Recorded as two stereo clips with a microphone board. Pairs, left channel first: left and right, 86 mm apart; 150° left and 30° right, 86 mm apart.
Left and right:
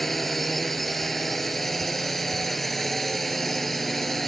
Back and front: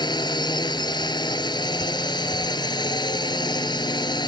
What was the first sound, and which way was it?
A drone, straight behind.